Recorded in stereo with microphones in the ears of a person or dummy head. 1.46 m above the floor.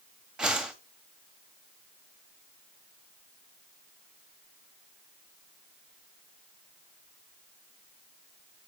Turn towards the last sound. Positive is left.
turn(degrees=-5)  # may be behind; listen again after turning